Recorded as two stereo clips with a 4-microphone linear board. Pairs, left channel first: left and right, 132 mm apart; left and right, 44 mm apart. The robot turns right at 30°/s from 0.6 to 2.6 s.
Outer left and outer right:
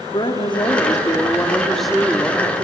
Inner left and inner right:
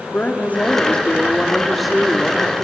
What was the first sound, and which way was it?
A woman speaking, 140° left.